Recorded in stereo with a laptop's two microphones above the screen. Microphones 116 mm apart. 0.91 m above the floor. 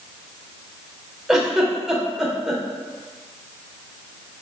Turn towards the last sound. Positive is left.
turn(degrees=-5)  # may be behind; listen again after turning